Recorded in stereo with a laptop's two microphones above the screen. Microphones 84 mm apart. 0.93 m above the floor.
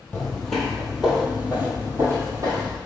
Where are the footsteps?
15° left (ahead or behind), 1.2 m; by 2.8 s 45° right (ahead or behind), 1.4 m.